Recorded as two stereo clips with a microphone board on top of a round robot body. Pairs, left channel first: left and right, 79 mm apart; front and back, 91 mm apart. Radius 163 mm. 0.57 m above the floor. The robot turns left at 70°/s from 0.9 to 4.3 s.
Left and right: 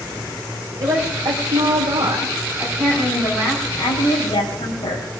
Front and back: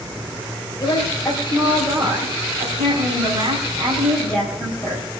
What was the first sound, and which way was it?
A woman speaking, 50° right.